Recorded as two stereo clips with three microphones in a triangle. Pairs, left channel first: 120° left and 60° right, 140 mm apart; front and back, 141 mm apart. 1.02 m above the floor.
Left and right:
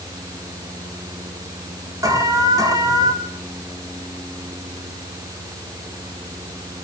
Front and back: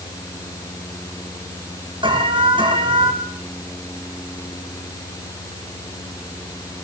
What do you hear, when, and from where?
2.0 s an alarm: 125° right, 7 m